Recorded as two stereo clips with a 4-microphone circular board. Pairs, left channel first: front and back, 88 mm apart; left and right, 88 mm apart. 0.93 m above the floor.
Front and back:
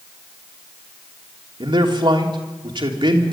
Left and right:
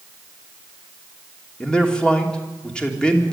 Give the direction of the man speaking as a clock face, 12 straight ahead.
6 o'clock.